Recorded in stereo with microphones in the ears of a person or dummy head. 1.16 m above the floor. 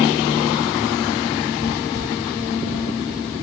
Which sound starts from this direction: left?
Footsteps, at 1.6 s.